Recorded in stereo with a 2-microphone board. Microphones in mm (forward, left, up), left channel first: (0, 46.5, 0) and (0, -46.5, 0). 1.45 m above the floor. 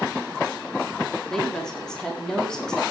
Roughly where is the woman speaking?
Centre.